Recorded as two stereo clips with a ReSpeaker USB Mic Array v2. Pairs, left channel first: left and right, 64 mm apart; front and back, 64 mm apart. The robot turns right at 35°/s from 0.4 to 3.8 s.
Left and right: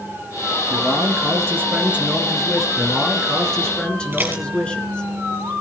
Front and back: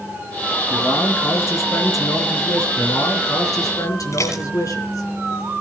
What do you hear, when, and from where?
0.7 s a man speaking: 65° right, 3 m; by 2.7 s straight ahead, 3 m
2.8 s a man speaking: 20° right, 3.5 m; by 5.1 s 15° left, 3.5 m
4.1 s dishes clattering: 30° right, 4 m